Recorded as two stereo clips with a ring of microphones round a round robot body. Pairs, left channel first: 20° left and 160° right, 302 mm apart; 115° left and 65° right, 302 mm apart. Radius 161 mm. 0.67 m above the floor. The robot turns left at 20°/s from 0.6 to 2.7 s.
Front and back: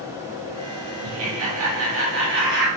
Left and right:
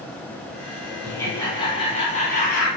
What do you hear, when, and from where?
1.0 s laughter: 165° right, 1.6 m; by 2.7 s 160° left, 1.6 m